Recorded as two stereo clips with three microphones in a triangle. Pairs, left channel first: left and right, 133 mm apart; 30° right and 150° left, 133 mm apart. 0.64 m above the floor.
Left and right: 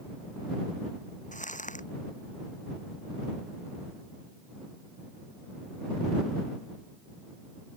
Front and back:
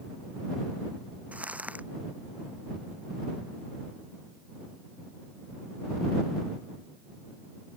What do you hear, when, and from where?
1.3 s crumpling: 70° left